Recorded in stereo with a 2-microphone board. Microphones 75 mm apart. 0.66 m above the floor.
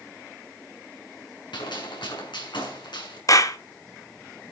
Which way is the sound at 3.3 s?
50° left (ahead or behind).